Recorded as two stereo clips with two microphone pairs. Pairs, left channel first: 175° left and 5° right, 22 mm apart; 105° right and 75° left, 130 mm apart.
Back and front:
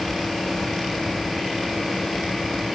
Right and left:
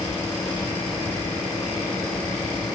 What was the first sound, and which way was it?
Only background noise.